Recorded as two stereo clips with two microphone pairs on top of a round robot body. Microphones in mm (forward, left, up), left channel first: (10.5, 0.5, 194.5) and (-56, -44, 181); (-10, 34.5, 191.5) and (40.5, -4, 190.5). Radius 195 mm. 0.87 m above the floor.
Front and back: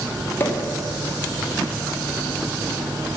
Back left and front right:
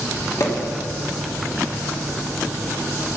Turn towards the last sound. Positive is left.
turn(degrees=95)